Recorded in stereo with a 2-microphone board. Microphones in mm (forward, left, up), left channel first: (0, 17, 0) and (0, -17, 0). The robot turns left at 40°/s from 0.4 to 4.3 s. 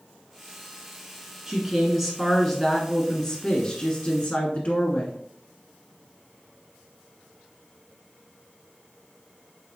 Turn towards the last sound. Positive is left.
turn(degrees=100)